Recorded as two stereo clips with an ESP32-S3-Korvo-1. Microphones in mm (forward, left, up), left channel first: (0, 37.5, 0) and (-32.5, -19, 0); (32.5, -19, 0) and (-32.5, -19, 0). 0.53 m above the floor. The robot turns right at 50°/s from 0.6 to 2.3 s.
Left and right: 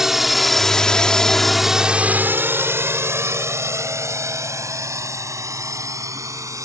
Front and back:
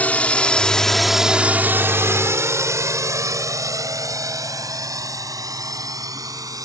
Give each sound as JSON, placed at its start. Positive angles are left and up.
{"t": 0.0, "sound": "a drone", "azimuth_deg": -45}